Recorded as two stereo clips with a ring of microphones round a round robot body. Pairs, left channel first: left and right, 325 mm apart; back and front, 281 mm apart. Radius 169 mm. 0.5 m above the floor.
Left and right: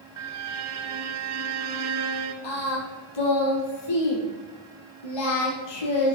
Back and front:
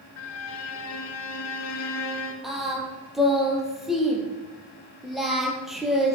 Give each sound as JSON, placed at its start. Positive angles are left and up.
{"t": 0.2, "sound": "a violin", "azimuth_deg": -130, "distance_m": 1.6}
{"t": 2.4, "sound": "singing", "azimuth_deg": 90, "distance_m": 4.0}